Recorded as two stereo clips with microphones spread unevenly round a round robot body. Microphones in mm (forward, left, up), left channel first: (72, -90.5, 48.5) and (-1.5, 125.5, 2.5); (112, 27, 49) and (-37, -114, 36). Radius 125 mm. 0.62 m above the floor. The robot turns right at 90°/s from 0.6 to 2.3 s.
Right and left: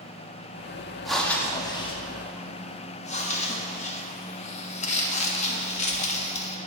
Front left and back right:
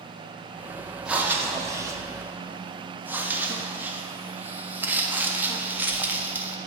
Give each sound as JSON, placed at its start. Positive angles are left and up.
{"t": 1.1, "sound": "breathing", "azimuth_deg": 160, "distance_m": 0.6}